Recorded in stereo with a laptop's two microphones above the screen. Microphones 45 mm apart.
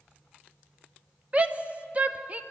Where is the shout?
30° right (ahead or behind), 0.8 m.